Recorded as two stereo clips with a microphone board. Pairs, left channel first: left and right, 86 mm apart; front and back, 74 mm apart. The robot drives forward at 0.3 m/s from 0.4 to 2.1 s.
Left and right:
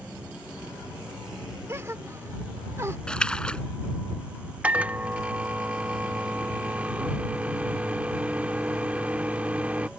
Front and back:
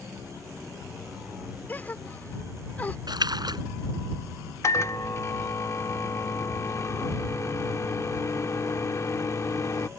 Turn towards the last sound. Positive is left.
turn(degrees=-20)